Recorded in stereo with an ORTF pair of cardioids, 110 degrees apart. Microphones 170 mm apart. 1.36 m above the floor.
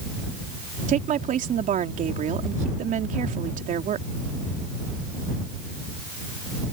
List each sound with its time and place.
0.9 s a woman speaking: 50° right